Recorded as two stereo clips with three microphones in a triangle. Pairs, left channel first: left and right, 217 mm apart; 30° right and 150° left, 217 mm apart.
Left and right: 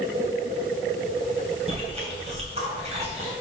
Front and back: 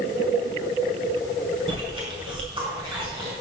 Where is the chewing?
145° right, 2.5 m.